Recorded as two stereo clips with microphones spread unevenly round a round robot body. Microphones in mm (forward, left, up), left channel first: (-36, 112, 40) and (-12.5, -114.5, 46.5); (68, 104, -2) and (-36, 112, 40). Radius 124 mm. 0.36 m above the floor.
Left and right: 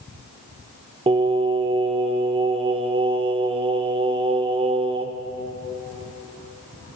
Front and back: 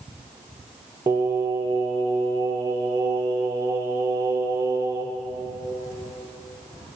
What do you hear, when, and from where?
1.1 s singing: 100° right, 0.6 m